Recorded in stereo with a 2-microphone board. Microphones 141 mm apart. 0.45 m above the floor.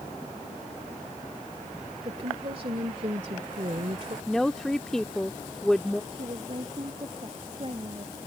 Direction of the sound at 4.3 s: 5° left (ahead or behind).